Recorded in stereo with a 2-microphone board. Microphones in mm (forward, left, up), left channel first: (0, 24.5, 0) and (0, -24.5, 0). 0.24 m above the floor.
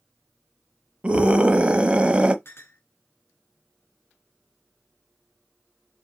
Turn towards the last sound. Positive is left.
turn(degrees=55)  # may be behind; listen again after turning